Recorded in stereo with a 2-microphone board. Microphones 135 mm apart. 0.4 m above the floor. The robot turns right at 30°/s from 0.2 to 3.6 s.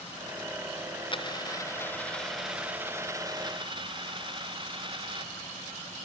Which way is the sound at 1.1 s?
145° left.